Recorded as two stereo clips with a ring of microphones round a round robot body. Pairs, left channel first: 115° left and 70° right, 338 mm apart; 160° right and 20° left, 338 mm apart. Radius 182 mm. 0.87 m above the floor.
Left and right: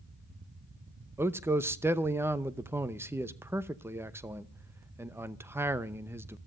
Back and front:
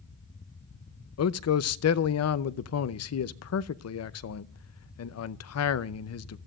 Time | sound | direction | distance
1.2 | a man speaking | 150° right | 0.8 m